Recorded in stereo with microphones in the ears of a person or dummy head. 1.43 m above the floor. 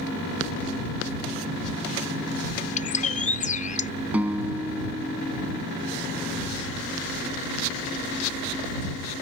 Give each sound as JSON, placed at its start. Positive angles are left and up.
{"t": 2.8, "sound": "a bird", "side_deg": 40}
{"t": 4.1, "sound": "a guitar", "side_deg": -10}